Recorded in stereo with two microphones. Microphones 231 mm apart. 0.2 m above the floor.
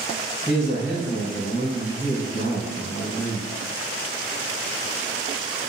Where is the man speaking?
35° left (ahead or behind), 1.5 m.